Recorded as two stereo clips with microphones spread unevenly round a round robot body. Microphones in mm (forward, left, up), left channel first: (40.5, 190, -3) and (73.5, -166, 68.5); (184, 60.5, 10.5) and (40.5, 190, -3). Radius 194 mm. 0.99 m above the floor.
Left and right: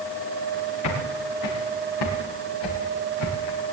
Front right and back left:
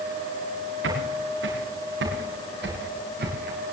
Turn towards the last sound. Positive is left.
turn(degrees=105)